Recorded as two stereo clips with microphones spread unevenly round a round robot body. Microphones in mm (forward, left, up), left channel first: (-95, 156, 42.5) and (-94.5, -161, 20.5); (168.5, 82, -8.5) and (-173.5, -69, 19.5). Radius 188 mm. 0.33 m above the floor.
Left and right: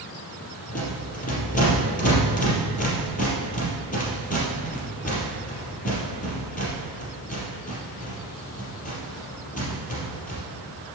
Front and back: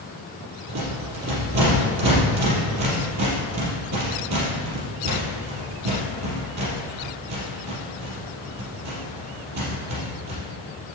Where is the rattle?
155° left, 4.5 m.